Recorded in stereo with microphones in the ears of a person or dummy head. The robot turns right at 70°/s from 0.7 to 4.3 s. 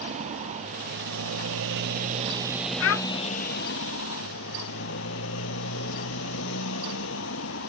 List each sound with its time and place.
0.0 s a motorcycle: 140° right; by 7.7 s 110° left
2.8 s a child speaking: 75° left (ahead or behind); by 3.0 s 65° left (ahead or behind)